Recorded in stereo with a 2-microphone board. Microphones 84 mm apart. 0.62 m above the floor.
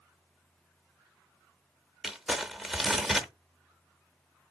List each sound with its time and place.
2.0 s crumpling: centre (ahead or behind), 0.7 m